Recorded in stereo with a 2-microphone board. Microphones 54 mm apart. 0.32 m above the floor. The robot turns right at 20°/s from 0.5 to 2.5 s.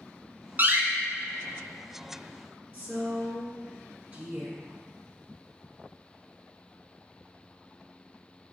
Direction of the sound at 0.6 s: 35° right (ahead or behind).